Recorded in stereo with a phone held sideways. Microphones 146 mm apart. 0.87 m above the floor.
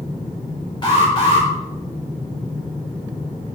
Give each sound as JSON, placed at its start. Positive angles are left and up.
{"t": 0.8, "sound": "an alarm", "side_deg": 35, "distance_m": 5.0}